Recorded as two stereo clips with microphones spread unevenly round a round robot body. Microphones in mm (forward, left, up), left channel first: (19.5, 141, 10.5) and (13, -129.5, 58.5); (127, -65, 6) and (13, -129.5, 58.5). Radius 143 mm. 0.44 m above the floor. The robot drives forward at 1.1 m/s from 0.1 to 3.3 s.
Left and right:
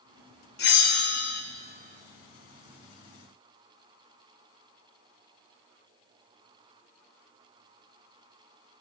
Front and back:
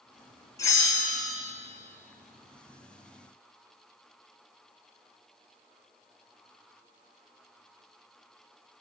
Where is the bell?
65° left, 1.9 m; by 1.4 s 105° left, 1.8 m.